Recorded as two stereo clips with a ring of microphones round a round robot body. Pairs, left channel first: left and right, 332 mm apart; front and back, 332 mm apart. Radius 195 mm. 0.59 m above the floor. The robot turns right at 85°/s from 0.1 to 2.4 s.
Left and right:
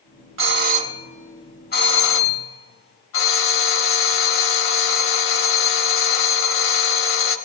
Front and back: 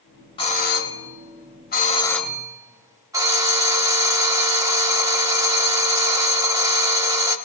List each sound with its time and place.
0.4 s a doorbell: 65° right, 1.2 m; by 7.4 s 105° left, 1.2 m